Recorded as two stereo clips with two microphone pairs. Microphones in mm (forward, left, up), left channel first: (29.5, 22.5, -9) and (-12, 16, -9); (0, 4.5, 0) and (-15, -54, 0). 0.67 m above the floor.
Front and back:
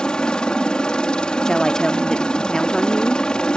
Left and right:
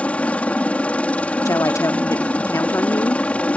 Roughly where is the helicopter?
Ahead left.